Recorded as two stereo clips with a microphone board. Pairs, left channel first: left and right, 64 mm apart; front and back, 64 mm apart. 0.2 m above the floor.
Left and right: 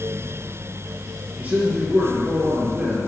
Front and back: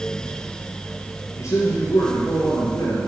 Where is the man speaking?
20° right, 3 m; by 3.1 s 10° right, 3.5 m.